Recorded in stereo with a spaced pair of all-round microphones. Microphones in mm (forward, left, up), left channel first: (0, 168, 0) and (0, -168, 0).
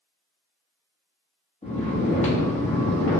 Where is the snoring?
20° left (ahead or behind), 0.9 m.